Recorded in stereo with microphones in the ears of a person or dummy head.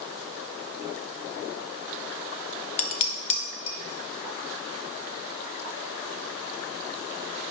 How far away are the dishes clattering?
About 0.8 m.